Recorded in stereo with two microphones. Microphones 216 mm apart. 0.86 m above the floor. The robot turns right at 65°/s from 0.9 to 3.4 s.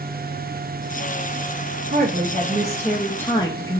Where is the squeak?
I don't hear a squeak.